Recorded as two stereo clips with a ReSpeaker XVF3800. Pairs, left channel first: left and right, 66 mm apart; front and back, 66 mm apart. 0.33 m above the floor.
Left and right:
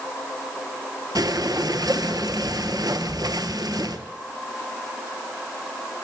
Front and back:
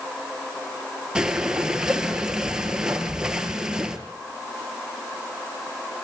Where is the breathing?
100° right, 1.3 m.